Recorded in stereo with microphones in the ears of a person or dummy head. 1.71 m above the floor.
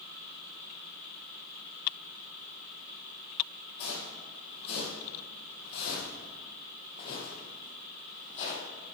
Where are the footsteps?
55° left (ahead or behind), 3.5 m; by 8.7 s 50° left (ahead or behind), 3.5 m.